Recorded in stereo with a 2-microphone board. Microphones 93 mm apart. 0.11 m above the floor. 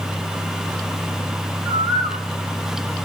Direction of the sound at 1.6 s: 50° right (ahead or behind).